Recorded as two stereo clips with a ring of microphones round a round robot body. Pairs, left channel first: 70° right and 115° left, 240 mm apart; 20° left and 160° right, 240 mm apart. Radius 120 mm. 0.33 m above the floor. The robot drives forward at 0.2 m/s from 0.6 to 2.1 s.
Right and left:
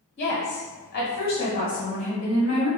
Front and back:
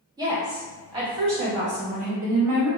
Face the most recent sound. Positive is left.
turn(degrees=-115)